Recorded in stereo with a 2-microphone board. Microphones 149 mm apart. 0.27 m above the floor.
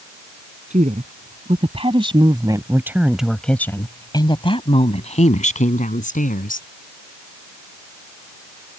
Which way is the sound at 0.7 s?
55° right (ahead or behind).